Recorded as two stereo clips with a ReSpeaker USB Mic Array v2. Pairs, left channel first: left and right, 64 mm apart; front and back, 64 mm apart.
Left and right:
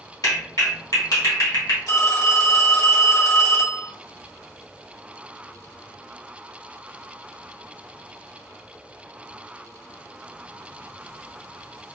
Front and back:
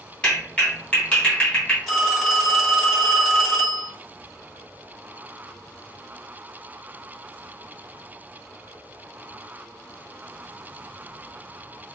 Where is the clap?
70° left, 1.4 m.